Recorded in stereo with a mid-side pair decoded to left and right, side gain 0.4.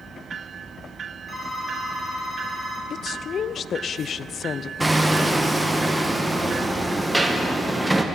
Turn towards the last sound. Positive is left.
turn(degrees=-15)